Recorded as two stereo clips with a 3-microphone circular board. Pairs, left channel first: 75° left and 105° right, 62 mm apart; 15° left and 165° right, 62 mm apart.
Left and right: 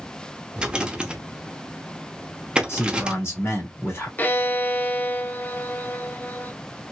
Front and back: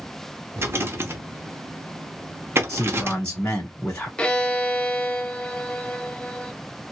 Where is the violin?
70° left, 0.5 m.